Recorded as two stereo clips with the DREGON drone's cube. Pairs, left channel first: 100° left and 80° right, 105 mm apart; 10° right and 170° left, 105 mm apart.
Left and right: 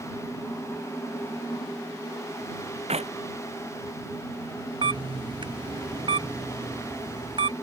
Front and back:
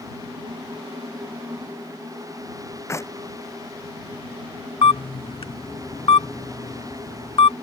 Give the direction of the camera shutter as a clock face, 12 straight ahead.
2 o'clock.